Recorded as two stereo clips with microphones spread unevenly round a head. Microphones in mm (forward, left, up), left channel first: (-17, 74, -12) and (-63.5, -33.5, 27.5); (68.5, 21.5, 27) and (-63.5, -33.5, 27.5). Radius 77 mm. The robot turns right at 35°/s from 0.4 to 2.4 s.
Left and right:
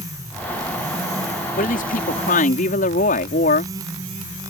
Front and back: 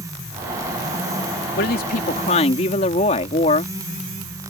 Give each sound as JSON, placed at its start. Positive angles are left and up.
{"t": 1.6, "sound": "a woman speaking", "azimuth_deg": 45}